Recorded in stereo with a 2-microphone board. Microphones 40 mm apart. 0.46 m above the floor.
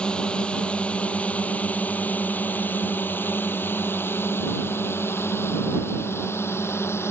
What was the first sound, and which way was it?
A drone, 20° left (ahead or behind).